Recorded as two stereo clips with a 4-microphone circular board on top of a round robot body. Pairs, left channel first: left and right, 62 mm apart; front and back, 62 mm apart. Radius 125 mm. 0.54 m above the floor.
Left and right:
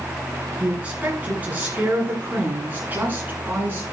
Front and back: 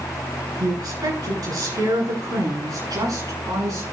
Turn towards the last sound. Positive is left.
turn(degrees=-150)